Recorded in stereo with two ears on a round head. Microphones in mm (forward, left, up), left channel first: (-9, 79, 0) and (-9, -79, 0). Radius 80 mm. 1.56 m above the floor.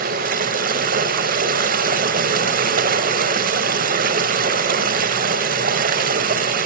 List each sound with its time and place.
0.0 s running water: 50° right (ahead or behind), 1.9 m